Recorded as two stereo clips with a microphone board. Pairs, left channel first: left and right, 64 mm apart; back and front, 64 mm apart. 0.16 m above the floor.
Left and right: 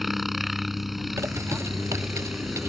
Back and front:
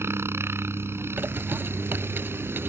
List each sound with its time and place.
0.0 s a helicopter: 5° right
1.2 s a bird: 55° right